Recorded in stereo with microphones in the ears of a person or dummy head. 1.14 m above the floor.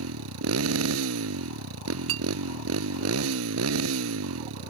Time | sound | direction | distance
0.0 | a motorcycle | 80° right | ?
2.1 | a clink | 70° right (ahead or behind) | ?